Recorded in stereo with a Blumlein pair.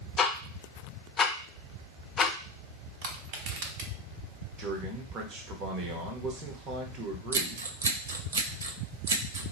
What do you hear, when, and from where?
0.2 s ticking: 20° left, 0.6 m
3.0 s crushing: 45° right, 0.9 m
4.6 s a man speaking: 30° right, 1.0 m
7.3 s scissors: 65° right, 0.6 m